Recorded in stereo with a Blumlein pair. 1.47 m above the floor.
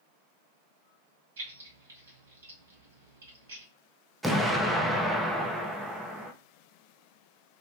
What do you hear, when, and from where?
1.4 s keys jangling: 65° right, 1.8 m
4.2 s an explosion: 5° right, 0.6 m